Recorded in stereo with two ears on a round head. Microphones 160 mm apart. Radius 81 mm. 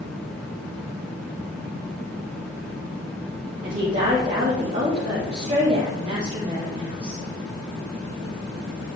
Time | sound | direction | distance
3.6 | a woman speaking | 35° right (ahead or behind) | 3.5 m